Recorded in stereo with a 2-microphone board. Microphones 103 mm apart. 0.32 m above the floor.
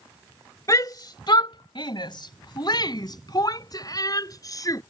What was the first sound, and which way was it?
A shout, 35° left (ahead or behind).